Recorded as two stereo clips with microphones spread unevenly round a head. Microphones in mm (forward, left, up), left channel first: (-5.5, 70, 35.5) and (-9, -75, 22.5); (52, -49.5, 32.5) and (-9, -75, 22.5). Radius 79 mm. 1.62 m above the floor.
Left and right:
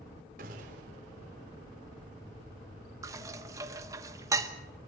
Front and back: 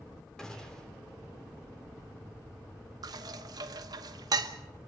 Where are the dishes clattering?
160° right, 1.0 m.